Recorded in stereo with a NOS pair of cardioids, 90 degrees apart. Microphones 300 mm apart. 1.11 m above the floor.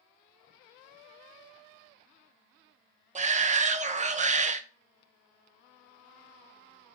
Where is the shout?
25° right, 0.5 m.